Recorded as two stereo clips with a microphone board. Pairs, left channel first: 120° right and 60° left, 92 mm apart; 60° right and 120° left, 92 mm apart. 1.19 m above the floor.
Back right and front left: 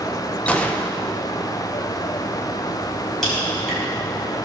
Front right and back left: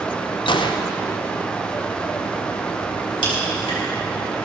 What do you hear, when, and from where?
0.5 s a gunshot: 45° right, 0.8 m
3.2 s a crack: 35° right, 4.5 m